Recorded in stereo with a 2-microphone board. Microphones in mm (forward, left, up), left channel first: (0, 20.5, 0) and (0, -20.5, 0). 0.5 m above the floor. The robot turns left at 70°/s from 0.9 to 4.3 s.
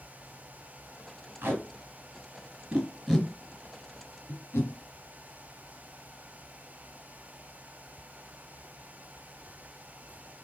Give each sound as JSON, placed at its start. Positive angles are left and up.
{"t": 1.4, "sound": "tape being pulled", "side_deg": -60, "distance_m": 1.6}